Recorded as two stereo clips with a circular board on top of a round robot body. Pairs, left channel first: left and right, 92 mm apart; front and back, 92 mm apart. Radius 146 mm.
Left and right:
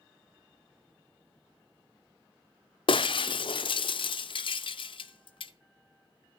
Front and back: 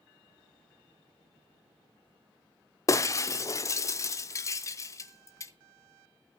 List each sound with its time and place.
2.9 s breaking glass: 60° left, 0.6 m